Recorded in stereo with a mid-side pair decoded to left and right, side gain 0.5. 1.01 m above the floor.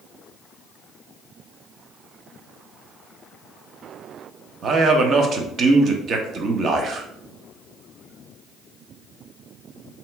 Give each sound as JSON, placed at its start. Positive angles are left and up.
{"t": 4.6, "sound": "a man speaking", "azimuth_deg": -50, "distance_m": 0.7}